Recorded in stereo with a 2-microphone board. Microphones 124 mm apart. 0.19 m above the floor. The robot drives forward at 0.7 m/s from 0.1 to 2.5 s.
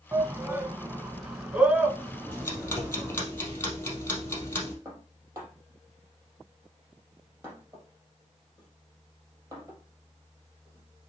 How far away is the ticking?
About 3 m.